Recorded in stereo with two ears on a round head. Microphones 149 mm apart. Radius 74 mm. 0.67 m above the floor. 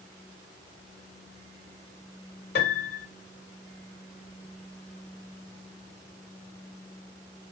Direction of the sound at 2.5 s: 65° left (ahead or behind).